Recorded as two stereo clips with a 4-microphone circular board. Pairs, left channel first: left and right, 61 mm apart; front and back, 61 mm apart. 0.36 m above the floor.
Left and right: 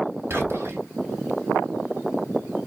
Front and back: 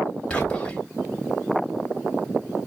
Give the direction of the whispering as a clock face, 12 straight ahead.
2 o'clock.